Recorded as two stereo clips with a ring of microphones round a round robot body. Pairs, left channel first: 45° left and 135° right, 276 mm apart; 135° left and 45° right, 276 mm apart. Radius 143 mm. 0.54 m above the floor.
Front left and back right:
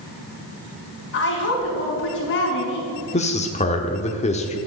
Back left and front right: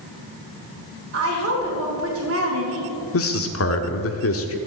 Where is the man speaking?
110° left, 1.1 m.